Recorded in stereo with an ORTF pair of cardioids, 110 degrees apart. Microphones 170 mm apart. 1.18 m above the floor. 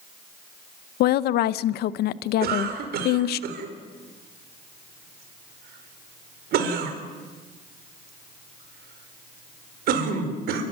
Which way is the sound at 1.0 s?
70° left.